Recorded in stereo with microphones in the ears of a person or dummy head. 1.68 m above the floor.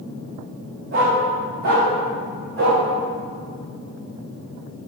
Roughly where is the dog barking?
Right.